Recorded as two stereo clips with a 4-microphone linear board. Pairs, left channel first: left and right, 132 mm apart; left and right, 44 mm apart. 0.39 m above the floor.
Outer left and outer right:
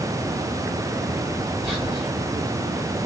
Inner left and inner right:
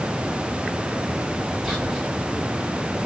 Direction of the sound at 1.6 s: 5° right (ahead or behind).